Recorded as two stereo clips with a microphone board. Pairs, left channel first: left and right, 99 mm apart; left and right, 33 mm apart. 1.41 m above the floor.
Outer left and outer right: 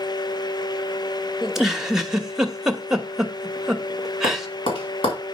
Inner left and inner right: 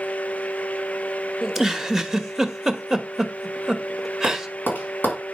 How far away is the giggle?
About 1.0 m.